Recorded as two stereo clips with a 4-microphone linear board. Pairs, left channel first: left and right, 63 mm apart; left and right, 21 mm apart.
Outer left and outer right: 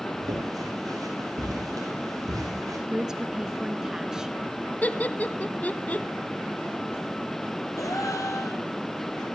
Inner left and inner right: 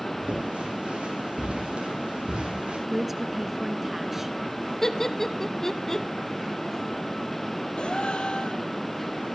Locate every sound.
0.2 s footsteps: 80° right, 9 m; by 2.8 s 70° right (ahead or behind), 9 m
2.9 s a woman speaking: 10° right (ahead or behind), 1.1 m
4.8 s laughter: 25° left (ahead or behind), 1.2 m
7.8 s a gasp: 60° left (ahead or behind), 3 m